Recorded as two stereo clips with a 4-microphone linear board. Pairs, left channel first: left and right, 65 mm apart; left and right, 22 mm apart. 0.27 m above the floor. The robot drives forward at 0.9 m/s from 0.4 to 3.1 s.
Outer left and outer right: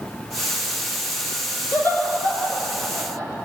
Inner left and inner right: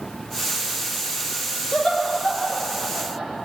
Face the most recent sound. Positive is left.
turn(degrees=40)  # may be behind; listen again after turning